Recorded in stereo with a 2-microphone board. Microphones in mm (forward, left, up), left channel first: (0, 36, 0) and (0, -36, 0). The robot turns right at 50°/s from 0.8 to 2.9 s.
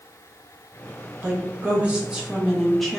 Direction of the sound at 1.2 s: 25° right (ahead or behind).